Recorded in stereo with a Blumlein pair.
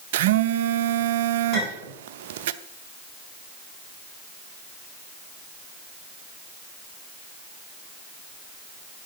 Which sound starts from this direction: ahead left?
A clink, at 1.5 s.